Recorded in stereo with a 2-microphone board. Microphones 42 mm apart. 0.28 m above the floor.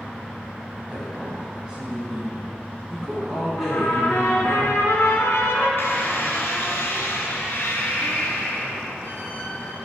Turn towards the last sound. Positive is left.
turn(degrees=65)  # may be behind; listen again after turning